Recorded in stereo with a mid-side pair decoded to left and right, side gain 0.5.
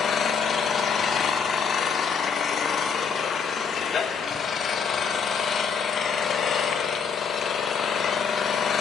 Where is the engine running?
50° left, 0.7 m.